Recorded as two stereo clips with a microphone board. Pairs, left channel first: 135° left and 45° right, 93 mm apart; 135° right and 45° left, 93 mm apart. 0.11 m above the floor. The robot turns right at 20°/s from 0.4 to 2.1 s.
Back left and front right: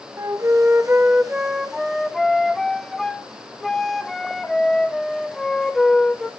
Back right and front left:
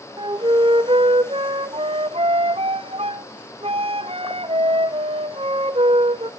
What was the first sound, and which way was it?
A flute, 15° left.